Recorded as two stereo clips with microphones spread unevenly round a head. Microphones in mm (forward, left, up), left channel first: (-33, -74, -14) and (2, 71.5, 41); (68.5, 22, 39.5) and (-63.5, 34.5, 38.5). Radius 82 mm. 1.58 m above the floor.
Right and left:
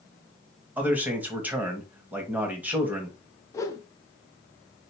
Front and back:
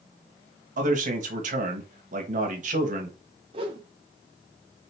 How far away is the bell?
No bell in this recording.